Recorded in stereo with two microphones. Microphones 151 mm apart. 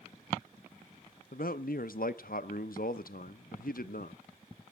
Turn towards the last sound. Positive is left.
turn(degrees=70)  # may be behind; listen again after turning